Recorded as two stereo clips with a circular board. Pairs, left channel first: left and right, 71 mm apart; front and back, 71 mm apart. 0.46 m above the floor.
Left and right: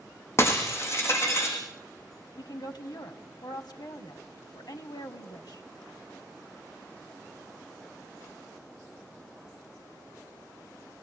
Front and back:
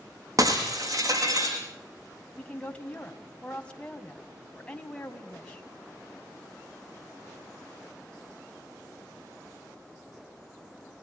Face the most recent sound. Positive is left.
turn(degrees=70)